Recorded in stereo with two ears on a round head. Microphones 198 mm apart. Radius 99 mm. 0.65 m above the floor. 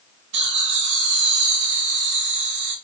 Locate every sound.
0.3 s laughter: 55° right (ahead or behind), 3.5 m